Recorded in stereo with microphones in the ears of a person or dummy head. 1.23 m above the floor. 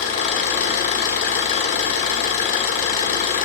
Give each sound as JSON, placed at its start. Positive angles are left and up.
{"t": 0.0, "sound": "an engine running", "side_deg": 45, "distance_m": 1.2}